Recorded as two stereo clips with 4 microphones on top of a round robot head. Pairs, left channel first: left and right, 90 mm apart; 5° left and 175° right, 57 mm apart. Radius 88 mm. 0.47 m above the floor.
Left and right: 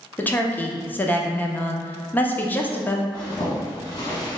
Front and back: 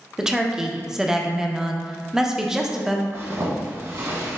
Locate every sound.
0.2 s a woman speaking: 120° left, 0.7 m
3.1 s a zipper: 145° left, 1.6 m